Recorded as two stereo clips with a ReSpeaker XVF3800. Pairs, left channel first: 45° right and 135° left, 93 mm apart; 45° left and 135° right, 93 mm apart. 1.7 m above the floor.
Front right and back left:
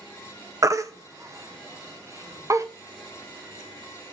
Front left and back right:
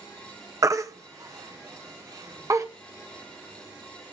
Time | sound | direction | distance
0.6 | a baby crying | straight behind | 0.8 m